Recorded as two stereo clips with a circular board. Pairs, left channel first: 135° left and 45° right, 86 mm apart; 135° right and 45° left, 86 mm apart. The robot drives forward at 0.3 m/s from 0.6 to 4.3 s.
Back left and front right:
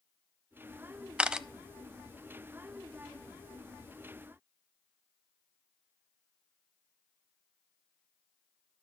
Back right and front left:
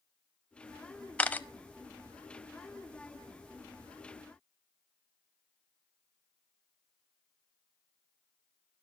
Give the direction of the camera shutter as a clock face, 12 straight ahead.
3 o'clock.